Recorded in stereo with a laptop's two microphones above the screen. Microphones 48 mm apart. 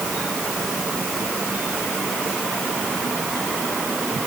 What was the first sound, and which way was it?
Only background noise.